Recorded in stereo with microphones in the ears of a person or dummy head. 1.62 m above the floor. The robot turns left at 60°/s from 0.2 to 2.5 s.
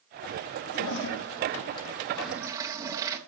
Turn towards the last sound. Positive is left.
turn(degrees=-15)